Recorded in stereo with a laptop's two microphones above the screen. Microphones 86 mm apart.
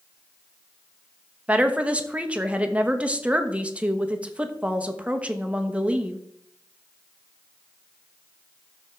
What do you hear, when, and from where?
1.5 s a woman speaking: 15° right (ahead or behind), 1.0 m